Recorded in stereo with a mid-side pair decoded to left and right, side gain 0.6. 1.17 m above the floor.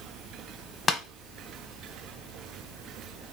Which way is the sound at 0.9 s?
40° left.